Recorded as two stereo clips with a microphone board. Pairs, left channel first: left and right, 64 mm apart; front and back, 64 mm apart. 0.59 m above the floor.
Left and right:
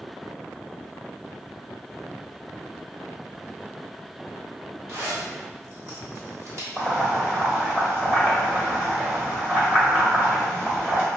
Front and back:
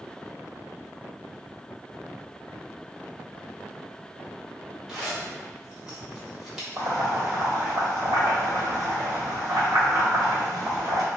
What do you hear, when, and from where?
4.9 s a zipper: 100° right, 1.4 m
6.8 s boiling: 165° right, 1.4 m